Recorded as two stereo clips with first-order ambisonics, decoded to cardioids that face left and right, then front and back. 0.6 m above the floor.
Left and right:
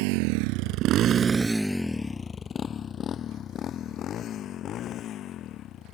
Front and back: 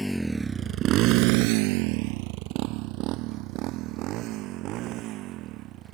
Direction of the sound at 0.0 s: 85° right.